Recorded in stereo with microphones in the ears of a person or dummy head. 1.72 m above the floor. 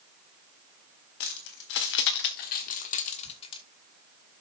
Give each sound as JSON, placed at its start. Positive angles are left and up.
{"t": 1.2, "sound": "keys jangling", "side_deg": 60, "distance_m": 1.9}